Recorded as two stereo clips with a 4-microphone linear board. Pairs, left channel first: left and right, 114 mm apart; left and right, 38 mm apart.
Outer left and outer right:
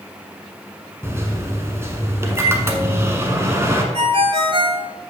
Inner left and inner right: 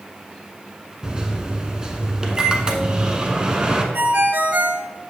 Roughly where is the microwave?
Right.